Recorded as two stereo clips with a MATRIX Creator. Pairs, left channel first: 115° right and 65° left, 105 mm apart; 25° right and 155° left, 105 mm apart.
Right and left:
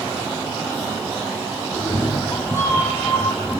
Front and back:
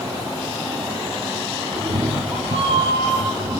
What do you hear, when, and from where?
1.7 s a cat meowing: 170° right, 3 m; by 3.6 s 170° left, 3 m